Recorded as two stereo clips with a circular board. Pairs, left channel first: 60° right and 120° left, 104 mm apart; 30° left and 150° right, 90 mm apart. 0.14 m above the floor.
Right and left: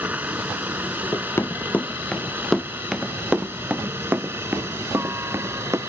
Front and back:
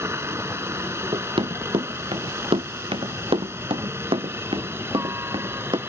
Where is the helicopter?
Straight behind; by 5.9 s 170° left.